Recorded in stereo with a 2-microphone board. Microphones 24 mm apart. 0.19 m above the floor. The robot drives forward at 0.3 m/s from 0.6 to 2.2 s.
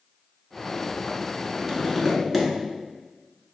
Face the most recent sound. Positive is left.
turn(degrees=0)  # may be behind; listen again after turning